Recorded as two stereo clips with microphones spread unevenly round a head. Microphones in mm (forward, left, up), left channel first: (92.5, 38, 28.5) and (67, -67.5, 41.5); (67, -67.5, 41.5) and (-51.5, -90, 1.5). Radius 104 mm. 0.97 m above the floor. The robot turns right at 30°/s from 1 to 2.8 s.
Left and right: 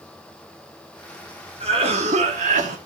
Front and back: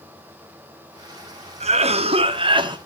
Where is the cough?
160° right, 2 m; by 2.8 s 125° right, 2 m.